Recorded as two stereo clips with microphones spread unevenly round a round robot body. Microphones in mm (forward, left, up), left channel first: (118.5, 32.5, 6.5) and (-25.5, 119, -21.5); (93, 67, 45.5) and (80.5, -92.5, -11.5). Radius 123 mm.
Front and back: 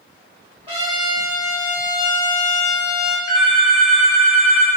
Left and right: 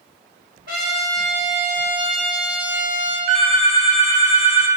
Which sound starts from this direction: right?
A phone ringing, at 3.3 s.